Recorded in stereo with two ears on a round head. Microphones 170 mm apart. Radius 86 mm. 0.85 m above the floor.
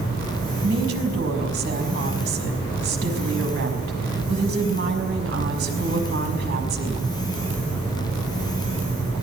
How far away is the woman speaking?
About 5.5 m.